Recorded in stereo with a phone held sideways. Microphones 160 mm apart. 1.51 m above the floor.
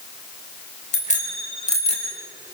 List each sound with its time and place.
0.9 s a bicycle bell: 50° left (ahead or behind), 4 m; by 2.1 s 40° left (ahead or behind), 6 m